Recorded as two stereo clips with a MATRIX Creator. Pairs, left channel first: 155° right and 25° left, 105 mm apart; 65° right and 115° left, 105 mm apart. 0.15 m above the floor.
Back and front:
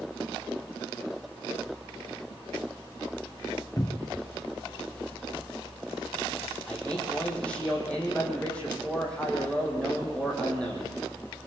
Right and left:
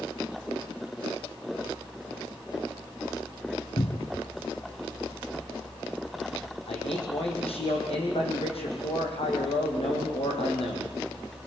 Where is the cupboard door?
110° right, 0.7 m.